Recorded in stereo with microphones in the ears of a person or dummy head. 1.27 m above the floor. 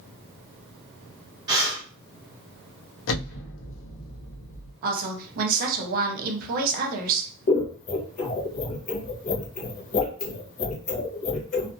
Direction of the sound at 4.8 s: 50° right (ahead or behind).